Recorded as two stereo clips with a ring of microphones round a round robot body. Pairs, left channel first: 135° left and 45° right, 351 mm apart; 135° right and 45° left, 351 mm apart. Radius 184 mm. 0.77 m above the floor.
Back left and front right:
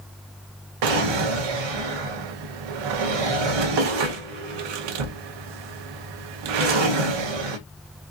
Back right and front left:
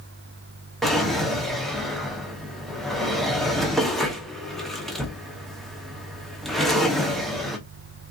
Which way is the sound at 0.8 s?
45° right.